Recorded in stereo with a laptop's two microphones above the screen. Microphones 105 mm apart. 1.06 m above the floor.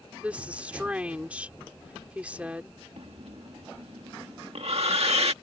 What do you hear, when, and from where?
0.2 s a woman speaking: 15° right (ahead or behind)
3.0 s breathing: 70° right (ahead or behind)